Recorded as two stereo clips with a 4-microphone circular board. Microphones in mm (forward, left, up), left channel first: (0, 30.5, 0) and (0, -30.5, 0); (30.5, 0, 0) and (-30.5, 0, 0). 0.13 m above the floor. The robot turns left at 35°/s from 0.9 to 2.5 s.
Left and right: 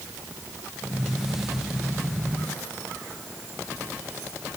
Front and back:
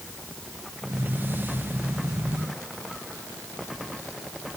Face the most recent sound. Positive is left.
No sound to turn to.